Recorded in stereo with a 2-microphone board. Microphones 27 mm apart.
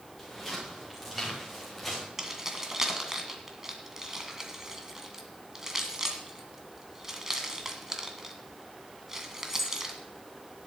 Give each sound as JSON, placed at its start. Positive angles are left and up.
{"t": 0.2, "sound": "footsteps", "side_deg": 0, "distance_m": 8.0}
{"t": 2.2, "sound": "keys jangling", "side_deg": -20, "distance_m": 1.9}